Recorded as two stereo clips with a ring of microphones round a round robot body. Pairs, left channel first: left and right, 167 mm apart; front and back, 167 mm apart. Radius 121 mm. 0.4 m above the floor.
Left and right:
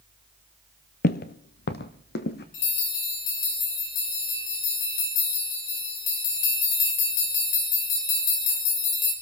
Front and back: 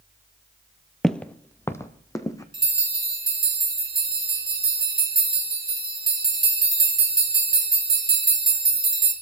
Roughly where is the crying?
I don't hear crying.